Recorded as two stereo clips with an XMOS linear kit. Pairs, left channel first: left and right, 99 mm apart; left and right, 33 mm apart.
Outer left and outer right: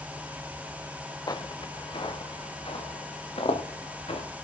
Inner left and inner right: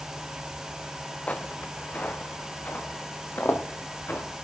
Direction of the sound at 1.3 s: 40° left (ahead or behind).